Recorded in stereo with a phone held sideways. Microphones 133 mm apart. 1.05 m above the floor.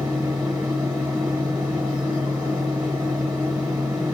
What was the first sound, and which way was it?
A fan, 5° right (ahead or behind).